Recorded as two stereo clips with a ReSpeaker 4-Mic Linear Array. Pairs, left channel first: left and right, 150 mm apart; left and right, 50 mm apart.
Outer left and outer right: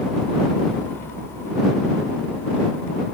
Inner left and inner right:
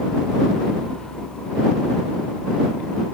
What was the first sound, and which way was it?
Only background noise.